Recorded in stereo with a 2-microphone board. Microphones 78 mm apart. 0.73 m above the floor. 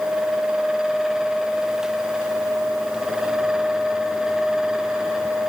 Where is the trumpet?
No trumpet in this recording.